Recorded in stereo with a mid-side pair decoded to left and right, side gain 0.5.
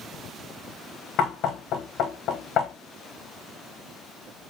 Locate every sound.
1.2 s knocking: 70° left, 0.7 m